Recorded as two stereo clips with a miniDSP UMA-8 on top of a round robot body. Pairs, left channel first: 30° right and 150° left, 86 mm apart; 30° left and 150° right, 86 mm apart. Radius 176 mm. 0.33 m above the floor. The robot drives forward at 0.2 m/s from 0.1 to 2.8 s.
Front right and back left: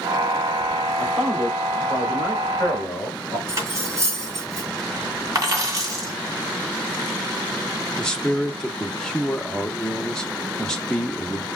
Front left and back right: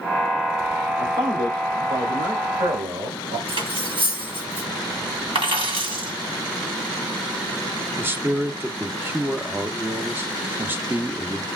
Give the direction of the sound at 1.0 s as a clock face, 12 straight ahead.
4 o'clock.